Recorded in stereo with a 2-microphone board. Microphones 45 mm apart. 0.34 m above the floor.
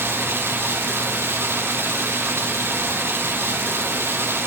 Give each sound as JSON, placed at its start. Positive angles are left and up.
{"t": 0.0, "sound": "running water", "side_deg": -70, "distance_m": 3.5}